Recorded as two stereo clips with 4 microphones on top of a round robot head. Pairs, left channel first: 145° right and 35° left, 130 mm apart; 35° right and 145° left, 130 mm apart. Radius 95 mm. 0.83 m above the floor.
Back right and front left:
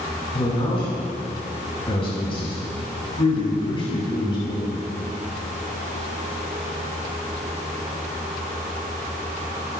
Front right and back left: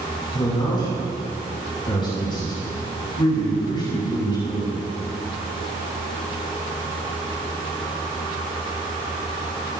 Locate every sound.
0.3 s a man speaking: 95° right, 6.5 m